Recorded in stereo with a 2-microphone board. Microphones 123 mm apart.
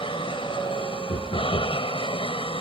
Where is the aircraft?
45° left (ahead or behind).